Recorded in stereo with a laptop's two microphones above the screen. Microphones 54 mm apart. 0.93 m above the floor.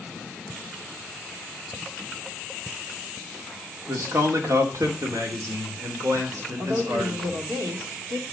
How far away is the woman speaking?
About 2 m.